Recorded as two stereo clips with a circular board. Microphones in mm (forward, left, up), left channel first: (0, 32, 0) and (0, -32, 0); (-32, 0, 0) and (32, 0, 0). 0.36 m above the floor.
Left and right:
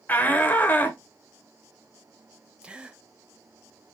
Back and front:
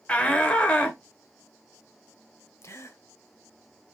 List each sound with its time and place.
0.1 s a shout: 125° left, 1.1 m
2.6 s a gasp: 160° right, 0.8 m